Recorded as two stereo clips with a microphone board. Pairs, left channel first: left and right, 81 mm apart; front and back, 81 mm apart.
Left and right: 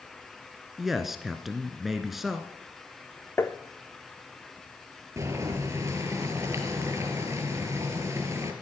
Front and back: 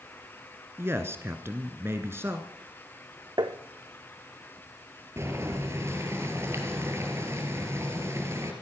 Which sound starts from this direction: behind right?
Boiling, at 5.2 s.